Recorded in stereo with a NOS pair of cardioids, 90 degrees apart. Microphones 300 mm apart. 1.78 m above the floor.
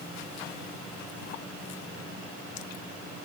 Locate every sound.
Only background noise.